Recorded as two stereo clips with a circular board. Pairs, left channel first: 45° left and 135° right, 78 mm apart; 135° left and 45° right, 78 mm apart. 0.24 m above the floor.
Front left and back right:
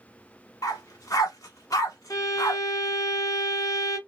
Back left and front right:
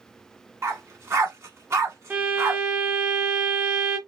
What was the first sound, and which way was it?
A dog barking, 5° left.